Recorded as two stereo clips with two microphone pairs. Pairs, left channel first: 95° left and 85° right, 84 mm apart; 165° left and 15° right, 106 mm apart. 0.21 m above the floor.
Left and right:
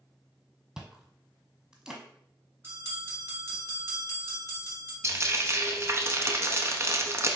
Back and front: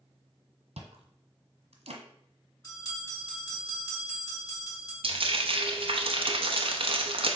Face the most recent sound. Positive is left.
turn(degrees=-30)